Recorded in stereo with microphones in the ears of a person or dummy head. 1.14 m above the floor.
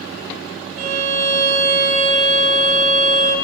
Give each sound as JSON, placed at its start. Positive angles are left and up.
{"t": 0.8, "sound": "a violin", "side_deg": -35, "distance_m": 0.8}